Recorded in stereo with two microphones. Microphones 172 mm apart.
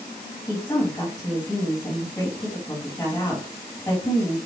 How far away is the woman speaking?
About 1.8 m.